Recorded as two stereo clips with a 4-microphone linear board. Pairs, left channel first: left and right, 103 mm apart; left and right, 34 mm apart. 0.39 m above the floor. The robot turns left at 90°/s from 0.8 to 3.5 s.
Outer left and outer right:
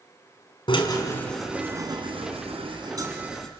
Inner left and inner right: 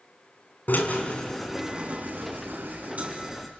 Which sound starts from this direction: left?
A drill, at 0.7 s.